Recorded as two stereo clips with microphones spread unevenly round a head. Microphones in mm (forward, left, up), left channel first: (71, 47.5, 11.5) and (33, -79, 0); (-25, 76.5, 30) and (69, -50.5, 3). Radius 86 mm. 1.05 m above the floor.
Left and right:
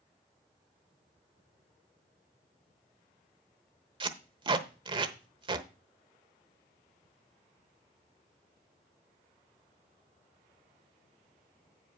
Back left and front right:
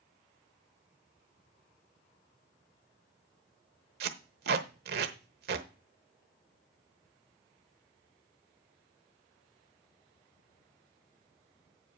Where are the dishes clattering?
No dishes clattering in this recording.